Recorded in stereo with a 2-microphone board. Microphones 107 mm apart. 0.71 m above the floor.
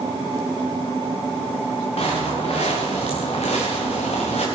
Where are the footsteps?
70° left (ahead or behind), 3.5 m; by 4.5 s 80° left, 3.5 m.